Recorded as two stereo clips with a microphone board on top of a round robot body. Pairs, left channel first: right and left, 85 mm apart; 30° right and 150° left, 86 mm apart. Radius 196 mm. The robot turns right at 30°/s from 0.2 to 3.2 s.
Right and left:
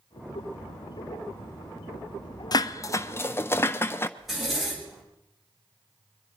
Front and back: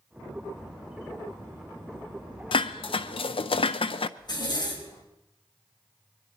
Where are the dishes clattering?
45° right, 0.5 m; by 4.1 s 25° right, 0.5 m.